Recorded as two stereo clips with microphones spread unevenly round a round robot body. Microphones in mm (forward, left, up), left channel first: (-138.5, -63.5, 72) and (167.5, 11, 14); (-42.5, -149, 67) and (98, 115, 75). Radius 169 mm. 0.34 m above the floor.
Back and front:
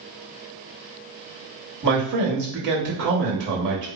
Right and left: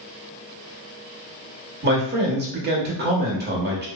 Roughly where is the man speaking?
Ahead.